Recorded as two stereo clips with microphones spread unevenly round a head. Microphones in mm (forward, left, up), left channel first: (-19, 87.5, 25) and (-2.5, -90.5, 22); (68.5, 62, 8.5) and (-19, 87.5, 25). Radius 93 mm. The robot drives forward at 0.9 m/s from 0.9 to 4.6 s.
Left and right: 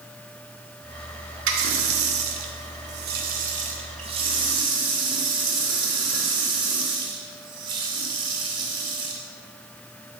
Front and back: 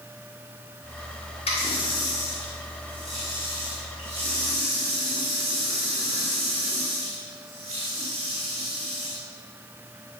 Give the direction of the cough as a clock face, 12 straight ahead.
I don't hear a cough.